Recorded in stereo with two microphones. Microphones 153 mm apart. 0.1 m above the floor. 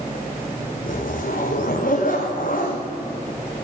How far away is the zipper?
About 2.5 m.